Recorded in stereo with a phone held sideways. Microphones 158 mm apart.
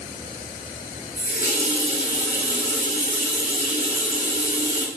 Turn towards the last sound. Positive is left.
turn(degrees=70)  # may be behind; listen again after turning